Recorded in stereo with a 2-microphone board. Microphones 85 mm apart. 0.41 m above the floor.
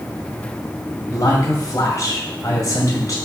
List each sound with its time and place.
1.1 s a man speaking: 40° left (ahead or behind), 2 m